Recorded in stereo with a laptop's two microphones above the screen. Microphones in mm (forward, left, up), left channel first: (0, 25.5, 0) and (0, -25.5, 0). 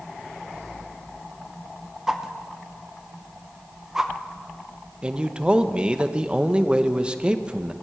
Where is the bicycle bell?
I don't hear a bicycle bell.